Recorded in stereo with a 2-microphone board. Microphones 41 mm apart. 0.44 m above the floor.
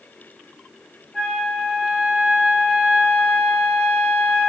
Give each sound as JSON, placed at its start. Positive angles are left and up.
{"t": 1.1, "sound": "a flute", "side_deg": 15, "distance_m": 1.0}